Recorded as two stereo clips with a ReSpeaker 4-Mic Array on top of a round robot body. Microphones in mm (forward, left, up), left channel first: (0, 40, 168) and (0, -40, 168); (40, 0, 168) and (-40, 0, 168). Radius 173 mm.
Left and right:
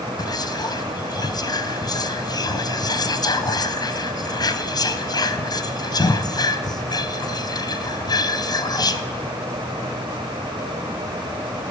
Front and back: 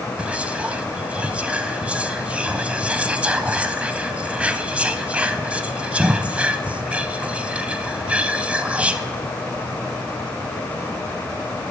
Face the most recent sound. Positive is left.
turn(degrees=105)